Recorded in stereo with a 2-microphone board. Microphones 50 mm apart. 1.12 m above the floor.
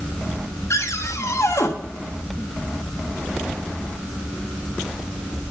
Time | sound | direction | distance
0.7 | a cupboard door | 75° left (ahead or behind) | 1.4 m